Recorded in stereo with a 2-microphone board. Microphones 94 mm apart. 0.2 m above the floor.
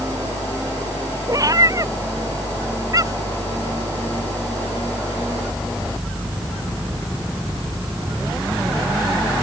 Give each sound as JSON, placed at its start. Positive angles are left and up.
{"t": 1.3, "sound": "a cat meowing", "side_deg": -40}